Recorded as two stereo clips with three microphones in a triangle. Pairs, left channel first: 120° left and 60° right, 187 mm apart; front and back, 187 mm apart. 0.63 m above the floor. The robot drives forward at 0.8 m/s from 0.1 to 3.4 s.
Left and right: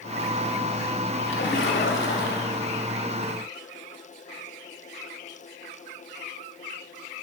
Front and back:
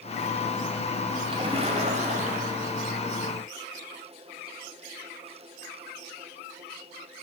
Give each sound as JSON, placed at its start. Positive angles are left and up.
{"t": 1.3, "sound": "a splash", "azimuth_deg": 115, "distance_m": 3.0}